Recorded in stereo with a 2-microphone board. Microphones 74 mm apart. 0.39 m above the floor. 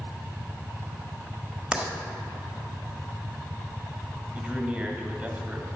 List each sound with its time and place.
1.7 s writing: 15° right (ahead or behind), 1.2 m
4.3 s a man speaking: 10° right (ahead or behind), 1.8 m